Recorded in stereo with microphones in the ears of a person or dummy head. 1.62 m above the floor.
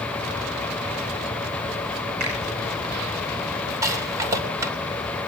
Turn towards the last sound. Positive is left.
turn(degrees=-20)  # may be behind; listen again after turning